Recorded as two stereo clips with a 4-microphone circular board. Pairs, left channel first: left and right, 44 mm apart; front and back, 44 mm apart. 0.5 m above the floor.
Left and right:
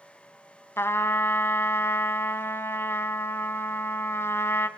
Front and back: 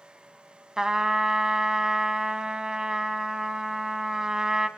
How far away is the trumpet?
About 0.9 m.